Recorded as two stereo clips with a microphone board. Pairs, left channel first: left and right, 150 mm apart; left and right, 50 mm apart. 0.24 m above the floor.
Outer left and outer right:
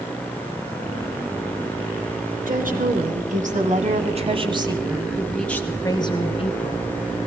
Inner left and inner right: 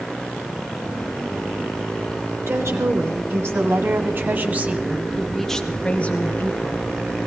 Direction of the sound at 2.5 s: 70° right (ahead or behind).